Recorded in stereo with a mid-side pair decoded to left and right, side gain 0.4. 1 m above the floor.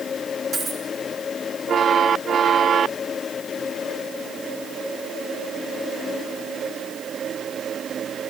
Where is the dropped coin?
60° right, 6 m.